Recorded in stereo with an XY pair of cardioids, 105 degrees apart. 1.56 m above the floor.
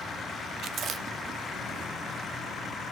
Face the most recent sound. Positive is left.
turn(degrees=-60)